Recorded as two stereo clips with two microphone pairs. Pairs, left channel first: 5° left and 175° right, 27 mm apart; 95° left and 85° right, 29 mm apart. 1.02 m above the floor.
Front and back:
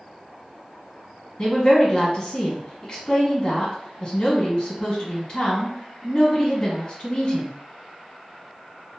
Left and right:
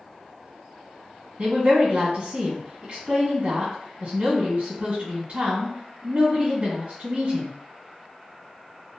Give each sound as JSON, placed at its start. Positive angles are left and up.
{"t": 1.4, "sound": "a woman speaking", "azimuth_deg": -50, "distance_m": 1.5}